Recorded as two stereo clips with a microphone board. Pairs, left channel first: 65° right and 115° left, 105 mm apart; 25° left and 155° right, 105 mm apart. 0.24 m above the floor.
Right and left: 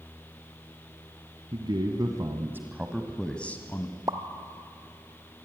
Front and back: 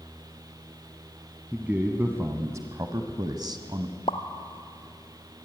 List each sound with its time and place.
1.5 s a man speaking: 130° left, 1.9 m; by 4.0 s 120° right, 1.8 m
4.1 s a pop: 60° left, 1.1 m